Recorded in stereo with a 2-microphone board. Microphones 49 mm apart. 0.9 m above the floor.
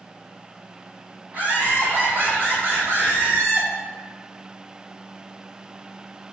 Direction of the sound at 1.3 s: 40° right (ahead or behind).